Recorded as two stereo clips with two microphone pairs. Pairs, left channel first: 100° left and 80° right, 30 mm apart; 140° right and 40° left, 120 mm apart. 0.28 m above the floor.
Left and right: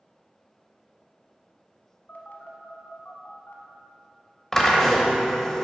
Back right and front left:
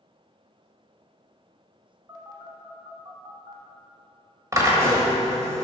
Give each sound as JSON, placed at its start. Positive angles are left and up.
{"t": 2.1, "sound": "a phone buzzing", "azimuth_deg": 90, "distance_m": 0.9}
{"t": 4.5, "sound": "a drill", "azimuth_deg": 45, "distance_m": 1.2}